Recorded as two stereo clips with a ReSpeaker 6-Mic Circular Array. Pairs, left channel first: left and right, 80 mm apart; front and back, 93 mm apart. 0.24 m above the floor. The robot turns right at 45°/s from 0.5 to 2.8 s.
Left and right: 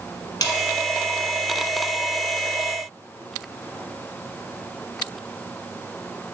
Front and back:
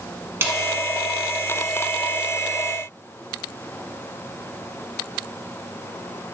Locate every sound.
0.4 s a snare drum: 120° left, 1.1 m